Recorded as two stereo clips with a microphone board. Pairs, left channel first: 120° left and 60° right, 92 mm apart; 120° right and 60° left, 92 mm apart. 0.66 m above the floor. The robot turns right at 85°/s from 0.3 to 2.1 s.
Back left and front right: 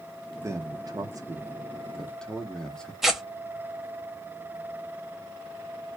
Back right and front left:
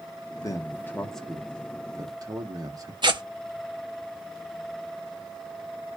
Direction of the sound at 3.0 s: 25° left.